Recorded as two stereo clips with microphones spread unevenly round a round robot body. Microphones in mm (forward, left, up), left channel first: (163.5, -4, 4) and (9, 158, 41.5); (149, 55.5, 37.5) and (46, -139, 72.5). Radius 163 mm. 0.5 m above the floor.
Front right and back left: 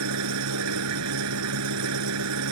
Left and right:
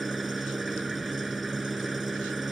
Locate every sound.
0.0 s an engine running: 155° left